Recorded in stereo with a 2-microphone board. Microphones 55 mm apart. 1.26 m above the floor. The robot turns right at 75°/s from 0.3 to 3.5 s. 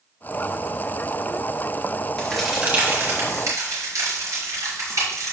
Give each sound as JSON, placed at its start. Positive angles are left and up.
{"t": 2.2, "sound": "a crack", "side_deg": 15, "distance_m": 5.0}